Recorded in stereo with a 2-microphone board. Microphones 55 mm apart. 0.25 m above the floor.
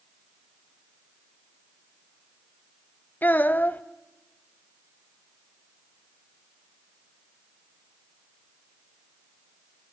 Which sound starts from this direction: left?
A child speaking, at 3.2 s.